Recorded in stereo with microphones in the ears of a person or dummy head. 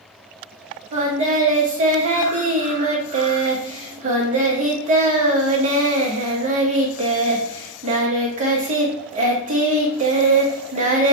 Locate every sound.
0.9 s singing: 40° right (ahead or behind), 0.8 m